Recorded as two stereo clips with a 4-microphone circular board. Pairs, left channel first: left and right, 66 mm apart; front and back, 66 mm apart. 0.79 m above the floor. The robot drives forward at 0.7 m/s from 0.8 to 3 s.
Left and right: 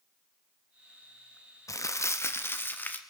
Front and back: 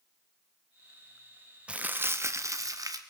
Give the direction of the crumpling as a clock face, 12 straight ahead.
8 o'clock.